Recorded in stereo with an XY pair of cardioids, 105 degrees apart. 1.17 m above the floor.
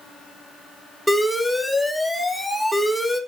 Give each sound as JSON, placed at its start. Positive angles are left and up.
{"t": 1.1, "sound": "an alarm", "azimuth_deg": 5, "distance_m": 2.5}